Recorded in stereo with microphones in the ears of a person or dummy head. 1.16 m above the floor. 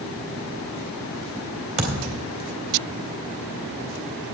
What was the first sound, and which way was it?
A thud, 40° right (ahead or behind).